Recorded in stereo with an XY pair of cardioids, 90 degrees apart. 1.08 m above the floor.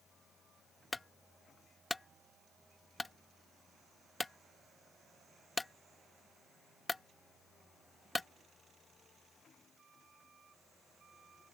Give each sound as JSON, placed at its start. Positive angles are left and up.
{"t": 0.9, "sound": "a clunk", "azimuth_deg": 20}